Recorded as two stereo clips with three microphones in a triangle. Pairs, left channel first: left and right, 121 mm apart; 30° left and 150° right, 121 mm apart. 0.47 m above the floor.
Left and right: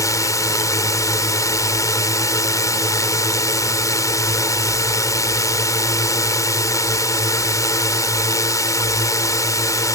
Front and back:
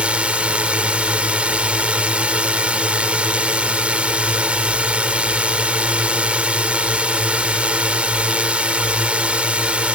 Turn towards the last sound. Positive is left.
turn(degrees=135)